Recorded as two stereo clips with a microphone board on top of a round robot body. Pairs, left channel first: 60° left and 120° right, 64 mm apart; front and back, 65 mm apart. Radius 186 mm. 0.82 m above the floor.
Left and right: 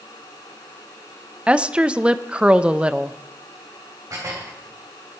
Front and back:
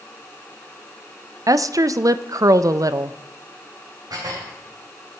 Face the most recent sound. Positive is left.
turn(degrees=-155)